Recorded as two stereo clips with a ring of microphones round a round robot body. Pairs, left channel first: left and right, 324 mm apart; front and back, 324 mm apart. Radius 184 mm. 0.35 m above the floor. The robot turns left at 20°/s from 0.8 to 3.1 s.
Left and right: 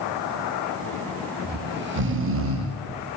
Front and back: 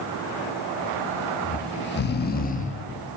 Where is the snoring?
35° right, 0.6 m; by 2.8 s 65° right, 0.6 m.